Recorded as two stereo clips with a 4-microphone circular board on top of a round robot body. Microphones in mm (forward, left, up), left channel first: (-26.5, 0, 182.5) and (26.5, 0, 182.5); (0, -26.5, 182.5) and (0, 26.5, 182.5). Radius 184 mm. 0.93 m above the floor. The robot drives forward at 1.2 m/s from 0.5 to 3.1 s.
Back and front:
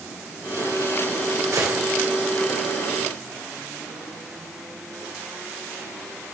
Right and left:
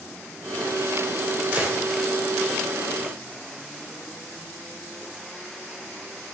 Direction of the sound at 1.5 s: 25° left.